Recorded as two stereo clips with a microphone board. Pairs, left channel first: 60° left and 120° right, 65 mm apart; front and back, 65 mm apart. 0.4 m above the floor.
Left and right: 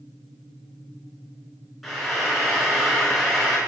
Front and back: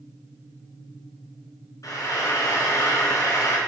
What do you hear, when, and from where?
1.8 s frying: 30° right, 3.5 m